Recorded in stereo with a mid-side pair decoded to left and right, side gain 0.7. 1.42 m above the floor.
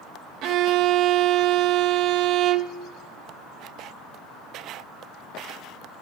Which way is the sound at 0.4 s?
55° right.